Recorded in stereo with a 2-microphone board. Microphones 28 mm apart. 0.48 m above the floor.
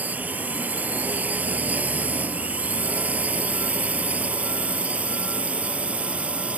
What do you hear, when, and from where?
0.0 s a drone: 70° right (ahead or behind); by 6.6 s 45° right (ahead or behind)